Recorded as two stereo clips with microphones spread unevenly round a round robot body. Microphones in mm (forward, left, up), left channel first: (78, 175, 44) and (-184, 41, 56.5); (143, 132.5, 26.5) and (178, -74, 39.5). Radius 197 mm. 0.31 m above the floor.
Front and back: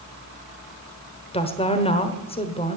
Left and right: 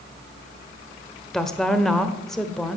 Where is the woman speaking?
25° left, 1.2 m.